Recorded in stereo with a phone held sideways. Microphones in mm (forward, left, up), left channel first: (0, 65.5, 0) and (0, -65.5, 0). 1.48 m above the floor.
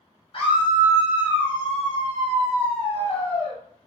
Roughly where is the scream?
Left.